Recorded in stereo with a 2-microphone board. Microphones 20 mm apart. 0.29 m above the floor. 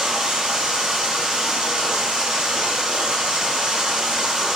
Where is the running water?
45° right (ahead or behind), 0.9 m.